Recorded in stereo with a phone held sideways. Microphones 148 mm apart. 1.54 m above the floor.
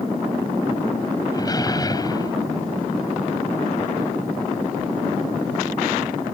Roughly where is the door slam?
Left.